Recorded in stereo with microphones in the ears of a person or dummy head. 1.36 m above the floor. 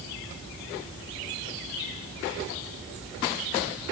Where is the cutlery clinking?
I don't hear cutlery clinking.